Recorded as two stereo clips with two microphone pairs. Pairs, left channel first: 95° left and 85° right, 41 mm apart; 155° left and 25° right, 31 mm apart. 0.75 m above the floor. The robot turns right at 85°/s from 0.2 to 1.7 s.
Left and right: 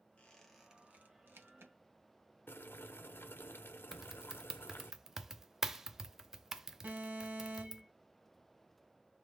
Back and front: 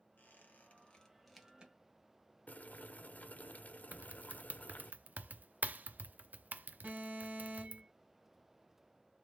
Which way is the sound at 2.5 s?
120° left.